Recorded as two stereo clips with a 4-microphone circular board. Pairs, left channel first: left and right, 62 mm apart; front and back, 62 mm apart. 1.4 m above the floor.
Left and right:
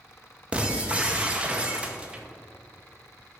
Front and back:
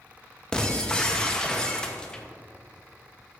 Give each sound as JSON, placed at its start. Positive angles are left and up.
{"t": 0.5, "sound": "breaking glass", "azimuth_deg": -60, "distance_m": 0.7}